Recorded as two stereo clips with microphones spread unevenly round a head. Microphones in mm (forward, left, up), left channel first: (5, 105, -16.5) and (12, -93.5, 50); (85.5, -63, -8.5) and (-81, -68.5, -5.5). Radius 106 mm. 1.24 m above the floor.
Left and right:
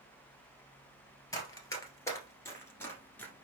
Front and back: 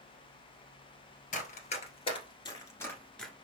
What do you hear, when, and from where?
1.3 s running footsteps: 5° left, 1.6 m; by 3.3 s 90° right, 1.2 m